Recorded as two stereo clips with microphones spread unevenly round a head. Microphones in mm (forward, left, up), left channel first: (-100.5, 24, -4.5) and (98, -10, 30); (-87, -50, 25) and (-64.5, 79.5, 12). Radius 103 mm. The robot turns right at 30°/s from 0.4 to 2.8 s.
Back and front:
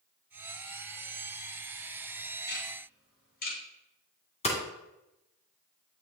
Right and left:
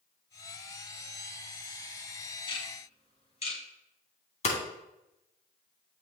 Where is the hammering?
125° right, 2.5 m.